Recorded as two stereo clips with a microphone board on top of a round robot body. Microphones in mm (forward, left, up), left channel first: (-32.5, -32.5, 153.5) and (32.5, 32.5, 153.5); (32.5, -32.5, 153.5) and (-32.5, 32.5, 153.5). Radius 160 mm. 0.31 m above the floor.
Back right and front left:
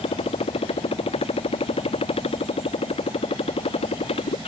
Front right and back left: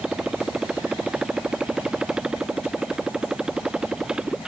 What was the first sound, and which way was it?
A motorcycle, 145° right.